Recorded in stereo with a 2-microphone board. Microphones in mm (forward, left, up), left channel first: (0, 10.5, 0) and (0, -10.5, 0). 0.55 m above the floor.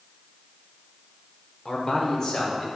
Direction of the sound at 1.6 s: 30° left (ahead or behind).